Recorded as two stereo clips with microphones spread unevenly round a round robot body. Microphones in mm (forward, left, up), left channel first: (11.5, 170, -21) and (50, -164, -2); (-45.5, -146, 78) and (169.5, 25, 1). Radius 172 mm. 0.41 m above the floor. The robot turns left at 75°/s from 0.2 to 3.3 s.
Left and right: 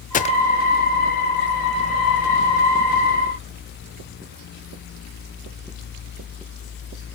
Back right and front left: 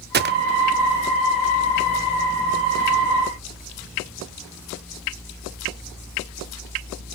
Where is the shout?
I don't hear a shout.